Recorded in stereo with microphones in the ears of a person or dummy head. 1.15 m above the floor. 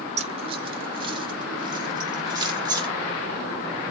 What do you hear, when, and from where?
0.2 s keys jangling: 35° right (ahead or behind), 0.7 m; by 2.9 s 20° right (ahead or behind), 2.5 m